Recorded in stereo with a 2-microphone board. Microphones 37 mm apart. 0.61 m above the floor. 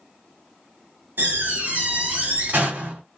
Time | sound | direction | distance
1.2 | a door slam | 55° right (ahead or behind) | 1.5 m